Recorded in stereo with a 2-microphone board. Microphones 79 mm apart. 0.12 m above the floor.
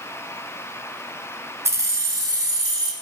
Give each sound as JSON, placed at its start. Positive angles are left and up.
{"t": 1.6, "sound": "keys jangling", "side_deg": -35, "distance_m": 0.9}